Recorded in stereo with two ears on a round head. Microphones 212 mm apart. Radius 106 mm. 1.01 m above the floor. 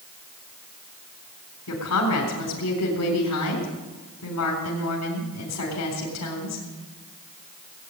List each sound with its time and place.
1.7 s a woman speaking: 75° left (ahead or behind), 4 m